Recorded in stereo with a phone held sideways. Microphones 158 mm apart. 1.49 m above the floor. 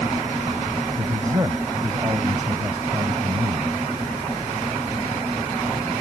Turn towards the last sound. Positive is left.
turn(degrees=-15)  # may be behind; listen again after turning